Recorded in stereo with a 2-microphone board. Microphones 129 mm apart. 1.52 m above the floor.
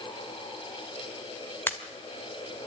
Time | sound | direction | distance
1.7 | a pop | 15° left (ahead or behind) | 1.6 m